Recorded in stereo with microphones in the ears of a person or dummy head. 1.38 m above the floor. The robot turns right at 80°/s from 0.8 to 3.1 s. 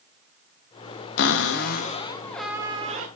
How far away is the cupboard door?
About 1.0 m.